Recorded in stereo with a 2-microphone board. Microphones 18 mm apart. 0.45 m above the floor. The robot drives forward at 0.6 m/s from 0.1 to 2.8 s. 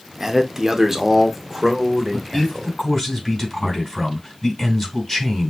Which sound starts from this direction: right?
A man speaking, at 0.2 s.